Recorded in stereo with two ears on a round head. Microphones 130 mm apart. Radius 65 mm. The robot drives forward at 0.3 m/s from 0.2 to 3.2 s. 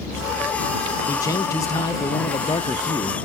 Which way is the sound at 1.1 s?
20° left (ahead or behind).